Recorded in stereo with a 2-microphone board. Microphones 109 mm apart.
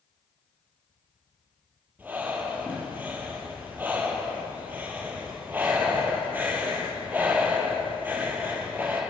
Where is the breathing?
15° right (ahead or behind), 4 m.